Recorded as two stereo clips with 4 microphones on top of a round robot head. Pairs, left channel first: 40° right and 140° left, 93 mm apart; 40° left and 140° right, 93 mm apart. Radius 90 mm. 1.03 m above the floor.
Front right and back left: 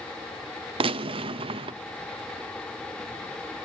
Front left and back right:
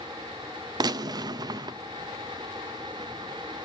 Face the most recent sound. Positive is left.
turn(degrees=170)